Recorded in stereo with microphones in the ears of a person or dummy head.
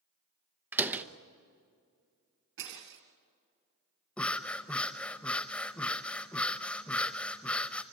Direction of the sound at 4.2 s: Centre (ahead or behind).